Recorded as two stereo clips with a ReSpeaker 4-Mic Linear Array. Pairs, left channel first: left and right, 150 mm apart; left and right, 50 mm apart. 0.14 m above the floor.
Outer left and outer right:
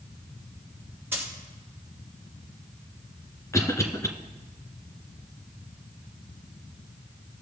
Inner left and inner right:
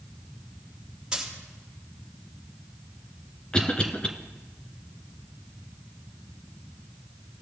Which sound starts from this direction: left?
A cough, at 3.5 s.